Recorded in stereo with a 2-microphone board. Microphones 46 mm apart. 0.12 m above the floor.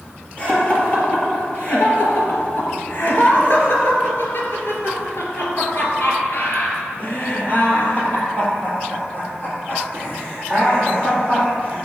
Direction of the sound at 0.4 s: 30° left (ahead or behind).